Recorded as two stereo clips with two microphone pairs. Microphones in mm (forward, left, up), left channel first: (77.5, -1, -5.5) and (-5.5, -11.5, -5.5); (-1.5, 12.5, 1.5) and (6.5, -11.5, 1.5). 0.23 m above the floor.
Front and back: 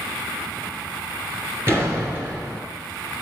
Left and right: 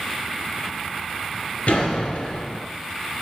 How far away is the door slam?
About 2.5 m.